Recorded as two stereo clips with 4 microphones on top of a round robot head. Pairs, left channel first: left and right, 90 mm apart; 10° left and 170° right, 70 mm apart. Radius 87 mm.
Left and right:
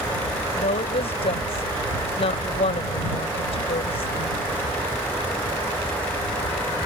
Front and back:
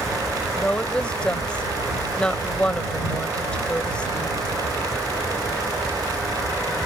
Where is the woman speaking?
85° left.